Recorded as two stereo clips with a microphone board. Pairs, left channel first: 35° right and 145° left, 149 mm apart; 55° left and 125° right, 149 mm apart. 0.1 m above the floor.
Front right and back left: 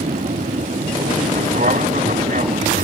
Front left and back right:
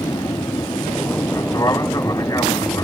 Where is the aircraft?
120° left.